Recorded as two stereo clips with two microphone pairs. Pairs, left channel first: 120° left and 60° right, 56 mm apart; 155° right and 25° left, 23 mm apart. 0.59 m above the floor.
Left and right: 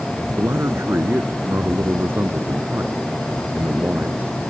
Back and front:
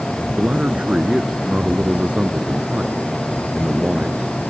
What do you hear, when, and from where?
0.4 s a man speaking: 15° right; by 4.3 s 5° right